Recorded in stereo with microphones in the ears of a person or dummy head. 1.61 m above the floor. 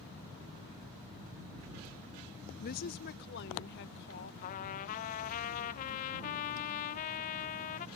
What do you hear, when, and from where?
2.6 s a woman speaking: 45° left (ahead or behind); by 4.3 s 60° left (ahead or behind)
4.4 s a trumpet: 45° left (ahead or behind)